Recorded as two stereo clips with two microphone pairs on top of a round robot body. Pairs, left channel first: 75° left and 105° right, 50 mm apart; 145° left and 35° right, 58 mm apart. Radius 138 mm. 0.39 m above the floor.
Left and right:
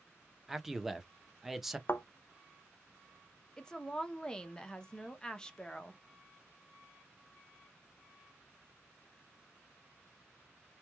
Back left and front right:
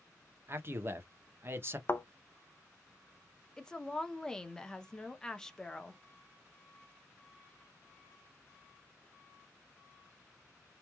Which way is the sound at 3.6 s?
100° left.